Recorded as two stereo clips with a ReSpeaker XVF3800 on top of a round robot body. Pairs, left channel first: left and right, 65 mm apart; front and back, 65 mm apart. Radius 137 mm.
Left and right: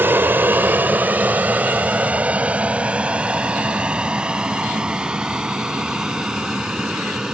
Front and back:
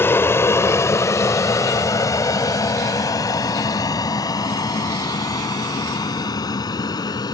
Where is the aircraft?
45° right; by 7.3 s 10° right.